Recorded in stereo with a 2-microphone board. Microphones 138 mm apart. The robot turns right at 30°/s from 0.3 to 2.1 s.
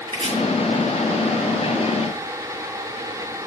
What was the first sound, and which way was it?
Chopping, 35° right (ahead or behind).